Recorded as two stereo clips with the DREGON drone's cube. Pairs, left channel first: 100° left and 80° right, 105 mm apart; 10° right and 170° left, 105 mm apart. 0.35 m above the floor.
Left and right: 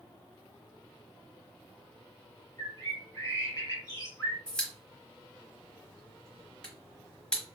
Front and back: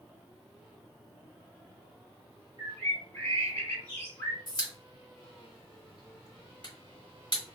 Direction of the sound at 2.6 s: 55° left.